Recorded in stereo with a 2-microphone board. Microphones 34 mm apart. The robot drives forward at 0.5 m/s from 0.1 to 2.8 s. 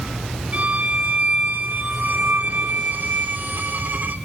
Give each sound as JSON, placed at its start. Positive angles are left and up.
{"t": 0.5, "sound": "a violin", "side_deg": -50, "distance_m": 3.0}